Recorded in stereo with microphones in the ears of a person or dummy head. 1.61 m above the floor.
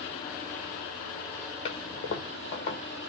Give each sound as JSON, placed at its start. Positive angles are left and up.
{"t": 1.6, "sound": "a toilet flushing", "side_deg": 35, "distance_m": 1.2}